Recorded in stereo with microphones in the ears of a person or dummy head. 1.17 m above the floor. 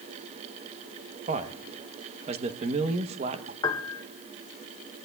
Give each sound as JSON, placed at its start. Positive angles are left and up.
{"t": 1.3, "sound": "a man speaking", "side_deg": -35, "distance_m": 0.9}
{"t": 3.6, "sound": "a piano", "side_deg": 20, "distance_m": 0.7}